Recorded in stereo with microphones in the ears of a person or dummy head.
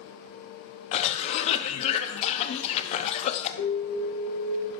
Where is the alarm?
60° left (ahead or behind), 0.8 m.